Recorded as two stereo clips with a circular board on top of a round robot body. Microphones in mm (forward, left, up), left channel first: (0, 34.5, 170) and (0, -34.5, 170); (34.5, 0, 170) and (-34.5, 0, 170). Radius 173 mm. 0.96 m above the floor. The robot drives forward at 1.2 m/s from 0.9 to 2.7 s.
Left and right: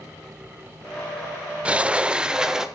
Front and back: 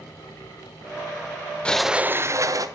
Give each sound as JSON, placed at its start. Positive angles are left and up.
{"t": 1.6, "sound": "a sliding door", "azimuth_deg": -45, "distance_m": 0.8}